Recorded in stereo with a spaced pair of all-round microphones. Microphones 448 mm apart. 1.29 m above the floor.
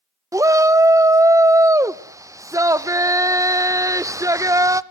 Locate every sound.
0.3 s a shout: 5° right (ahead or behind), 0.5 m